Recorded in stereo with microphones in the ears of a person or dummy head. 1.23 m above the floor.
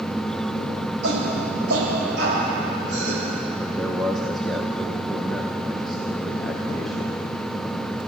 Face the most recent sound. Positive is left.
turn(degrees=0)  # may be behind; listen again after turning